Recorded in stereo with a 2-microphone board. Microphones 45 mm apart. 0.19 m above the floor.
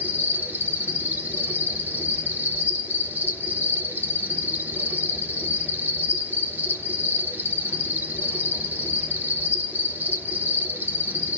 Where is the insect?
45° right (ahead or behind), 1.1 m.